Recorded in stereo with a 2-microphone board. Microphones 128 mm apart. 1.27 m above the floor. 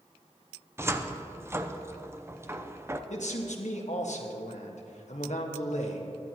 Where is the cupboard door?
20° right (ahead or behind), 0.6 m.